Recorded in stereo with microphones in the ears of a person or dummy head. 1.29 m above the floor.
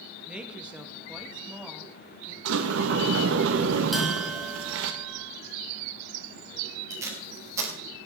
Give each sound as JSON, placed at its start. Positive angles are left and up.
{"t": 0.3, "sound": "a woman speaking", "side_deg": -5, "distance_m": 1.7}
{"t": 2.5, "sound": "a sliding door", "side_deg": -80, "distance_m": 1.1}
{"t": 3.9, "sound": "a bell", "side_deg": 5, "distance_m": 2.5}
{"t": 6.9, "sound": "tape being pulled", "side_deg": -15, "distance_m": 3.0}